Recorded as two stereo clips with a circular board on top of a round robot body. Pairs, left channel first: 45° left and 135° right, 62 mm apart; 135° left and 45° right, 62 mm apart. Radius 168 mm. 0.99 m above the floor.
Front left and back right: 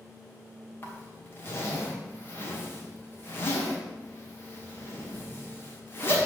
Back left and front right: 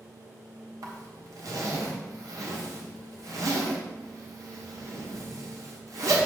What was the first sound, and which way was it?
A zipper, 15° right.